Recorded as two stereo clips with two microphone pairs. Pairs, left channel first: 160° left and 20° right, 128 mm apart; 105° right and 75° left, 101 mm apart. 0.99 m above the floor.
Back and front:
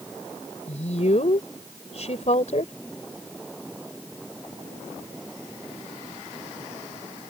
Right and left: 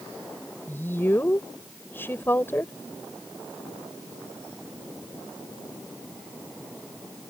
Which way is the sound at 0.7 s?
170° right.